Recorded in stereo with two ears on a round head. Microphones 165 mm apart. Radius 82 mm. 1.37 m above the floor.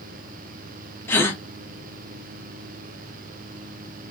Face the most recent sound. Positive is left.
turn(degrees=10)  # may be behind; listen again after turning